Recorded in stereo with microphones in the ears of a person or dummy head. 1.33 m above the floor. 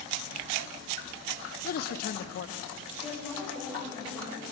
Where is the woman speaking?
10° right (ahead or behind), 7.5 m.